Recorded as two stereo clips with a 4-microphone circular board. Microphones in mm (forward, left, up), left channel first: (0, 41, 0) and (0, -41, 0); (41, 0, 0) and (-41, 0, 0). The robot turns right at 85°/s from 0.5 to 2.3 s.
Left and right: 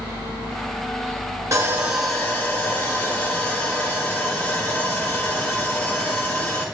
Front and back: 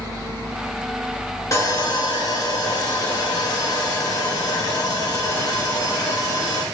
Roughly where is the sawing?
Ahead right.